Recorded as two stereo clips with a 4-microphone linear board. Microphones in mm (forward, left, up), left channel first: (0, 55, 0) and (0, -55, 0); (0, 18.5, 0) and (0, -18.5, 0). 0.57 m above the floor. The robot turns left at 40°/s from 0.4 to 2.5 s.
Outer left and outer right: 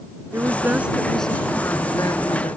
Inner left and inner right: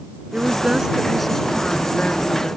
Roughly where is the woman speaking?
Behind right.